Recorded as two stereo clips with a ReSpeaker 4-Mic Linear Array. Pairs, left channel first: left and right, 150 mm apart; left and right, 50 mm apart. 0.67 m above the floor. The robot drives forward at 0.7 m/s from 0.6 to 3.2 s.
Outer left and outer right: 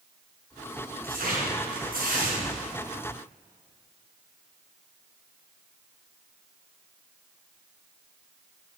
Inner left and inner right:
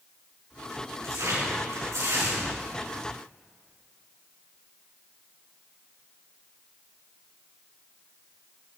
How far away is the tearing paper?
About 5.5 m.